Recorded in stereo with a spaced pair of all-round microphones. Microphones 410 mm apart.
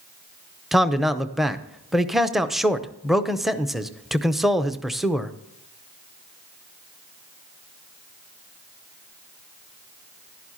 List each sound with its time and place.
0.7 s a man speaking: centre (ahead or behind), 0.6 m